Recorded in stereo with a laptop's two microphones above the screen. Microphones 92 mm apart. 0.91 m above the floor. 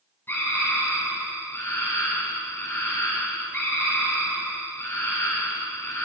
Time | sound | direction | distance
0.3 | a scream | 25° left (ahead or behind) | 9.5 m